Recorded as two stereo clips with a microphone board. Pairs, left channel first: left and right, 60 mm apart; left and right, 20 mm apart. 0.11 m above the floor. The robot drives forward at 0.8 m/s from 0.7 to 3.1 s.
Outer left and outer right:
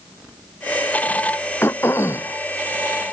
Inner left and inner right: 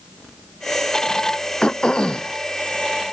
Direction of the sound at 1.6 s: 45° left (ahead or behind).